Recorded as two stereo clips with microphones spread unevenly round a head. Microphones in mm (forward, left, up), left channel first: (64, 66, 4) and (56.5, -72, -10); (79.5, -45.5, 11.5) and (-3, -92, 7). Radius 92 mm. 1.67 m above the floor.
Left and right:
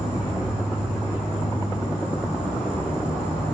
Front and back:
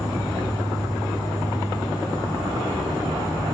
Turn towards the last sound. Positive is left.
turn(degrees=160)